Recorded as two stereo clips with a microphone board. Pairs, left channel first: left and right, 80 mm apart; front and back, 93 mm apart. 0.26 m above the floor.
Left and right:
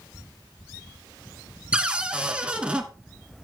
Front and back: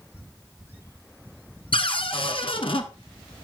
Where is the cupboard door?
15° right, 1.1 m.